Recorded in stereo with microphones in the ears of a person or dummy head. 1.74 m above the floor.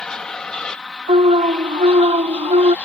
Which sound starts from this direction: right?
An alarm, at 1.1 s.